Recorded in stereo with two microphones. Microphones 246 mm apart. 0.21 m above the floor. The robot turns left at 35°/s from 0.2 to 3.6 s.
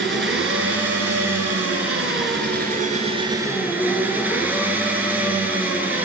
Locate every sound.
0.0 s an engine running: 55° right, 1.0 m; by 6.0 s 170° right, 1.0 m